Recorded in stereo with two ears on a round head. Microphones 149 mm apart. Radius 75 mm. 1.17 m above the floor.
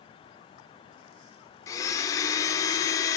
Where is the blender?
20° left (ahead or behind), 0.8 m.